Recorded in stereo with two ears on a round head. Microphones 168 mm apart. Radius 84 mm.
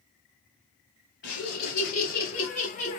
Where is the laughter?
65° left (ahead or behind), 2.5 m; by 3.0 s 35° left (ahead or behind), 1.5 m.